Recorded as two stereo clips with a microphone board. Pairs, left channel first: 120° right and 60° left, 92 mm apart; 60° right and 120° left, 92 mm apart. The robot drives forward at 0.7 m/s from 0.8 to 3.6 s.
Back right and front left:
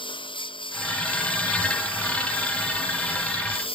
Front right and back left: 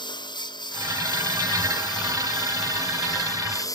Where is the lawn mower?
95° right; by 3.8 s 110° right.